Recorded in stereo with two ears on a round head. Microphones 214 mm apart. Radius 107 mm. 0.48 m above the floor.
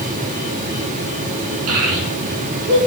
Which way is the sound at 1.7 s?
70° right (ahead or behind).